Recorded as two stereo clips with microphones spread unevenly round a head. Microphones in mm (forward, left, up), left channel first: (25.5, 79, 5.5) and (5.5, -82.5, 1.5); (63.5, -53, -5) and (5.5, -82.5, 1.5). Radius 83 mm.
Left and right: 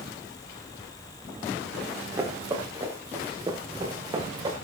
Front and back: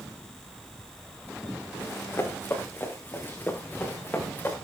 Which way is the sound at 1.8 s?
25° right.